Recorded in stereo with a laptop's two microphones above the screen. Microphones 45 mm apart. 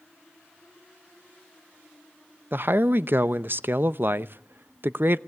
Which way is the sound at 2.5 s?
50° right (ahead or behind).